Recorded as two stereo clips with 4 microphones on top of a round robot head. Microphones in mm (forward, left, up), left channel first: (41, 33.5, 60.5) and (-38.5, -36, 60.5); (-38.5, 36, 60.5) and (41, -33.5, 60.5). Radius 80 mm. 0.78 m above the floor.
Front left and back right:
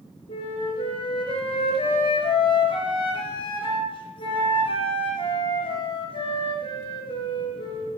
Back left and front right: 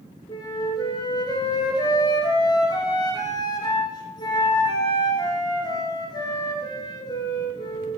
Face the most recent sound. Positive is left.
turn(degrees=85)